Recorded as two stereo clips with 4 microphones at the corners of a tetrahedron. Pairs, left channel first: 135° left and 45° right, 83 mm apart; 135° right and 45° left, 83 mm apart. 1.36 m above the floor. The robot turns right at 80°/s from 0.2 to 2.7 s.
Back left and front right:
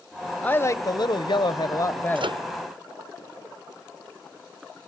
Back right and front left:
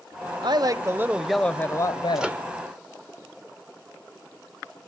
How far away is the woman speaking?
About 0.9 m.